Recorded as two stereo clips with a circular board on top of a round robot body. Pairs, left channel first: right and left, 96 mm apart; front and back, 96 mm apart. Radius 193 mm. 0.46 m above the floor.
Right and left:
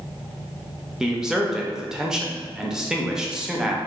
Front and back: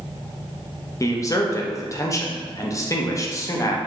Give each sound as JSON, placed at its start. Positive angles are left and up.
{"t": 1.0, "sound": "a man speaking", "azimuth_deg": 10, "distance_m": 0.8}